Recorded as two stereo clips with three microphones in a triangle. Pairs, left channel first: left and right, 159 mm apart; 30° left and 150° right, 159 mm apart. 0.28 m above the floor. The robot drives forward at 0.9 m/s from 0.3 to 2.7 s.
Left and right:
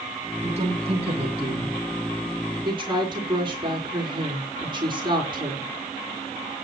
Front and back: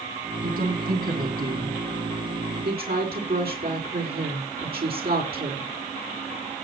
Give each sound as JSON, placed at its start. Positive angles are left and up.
{"t": 0.4, "sound": "a woman speaking", "azimuth_deg": -130, "distance_m": 3.5}